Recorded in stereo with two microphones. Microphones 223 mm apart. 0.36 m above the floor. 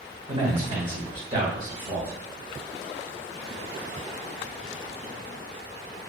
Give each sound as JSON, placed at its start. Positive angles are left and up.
{"t": 0.3, "sound": "a man speaking", "side_deg": -35, "distance_m": 1.5}